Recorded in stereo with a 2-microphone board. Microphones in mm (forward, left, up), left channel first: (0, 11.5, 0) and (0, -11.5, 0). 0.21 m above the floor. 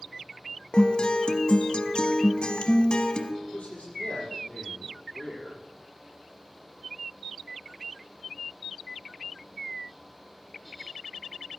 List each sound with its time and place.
0.7 s a guitar: 40° left (ahead or behind), 0.9 m
3.4 s a man speaking: 65° left (ahead or behind), 5.5 m